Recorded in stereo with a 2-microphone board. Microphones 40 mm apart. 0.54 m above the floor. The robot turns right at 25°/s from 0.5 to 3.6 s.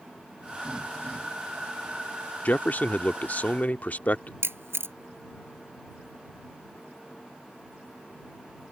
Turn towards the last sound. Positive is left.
turn(degrees=-85)